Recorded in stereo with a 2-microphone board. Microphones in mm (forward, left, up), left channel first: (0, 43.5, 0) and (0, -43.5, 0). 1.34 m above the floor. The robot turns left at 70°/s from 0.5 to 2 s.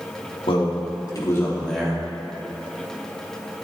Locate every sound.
0.5 s a man speaking: 90° left, 2.5 m; by 2.0 s 15° right, 2.5 m